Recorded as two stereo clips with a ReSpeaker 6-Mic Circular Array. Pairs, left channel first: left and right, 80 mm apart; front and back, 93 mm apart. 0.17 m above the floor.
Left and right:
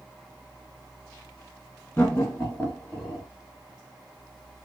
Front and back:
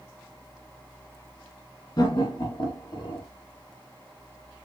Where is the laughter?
20° left, 3 m; by 3.2 s straight ahead, 3.5 m.